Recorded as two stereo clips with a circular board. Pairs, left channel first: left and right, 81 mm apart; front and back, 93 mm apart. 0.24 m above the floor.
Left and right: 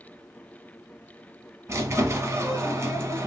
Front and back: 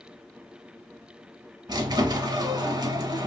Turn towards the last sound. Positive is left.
turn(degrees=-140)